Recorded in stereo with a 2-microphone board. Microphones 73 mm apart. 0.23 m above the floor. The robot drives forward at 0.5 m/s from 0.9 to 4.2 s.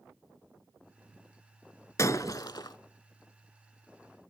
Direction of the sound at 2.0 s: 45° left (ahead or behind).